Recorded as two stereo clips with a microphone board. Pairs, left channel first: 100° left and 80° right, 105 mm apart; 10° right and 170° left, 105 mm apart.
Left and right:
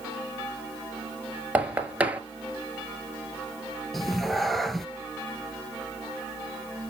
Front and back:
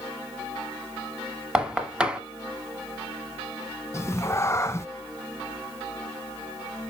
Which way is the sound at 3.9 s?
15° left.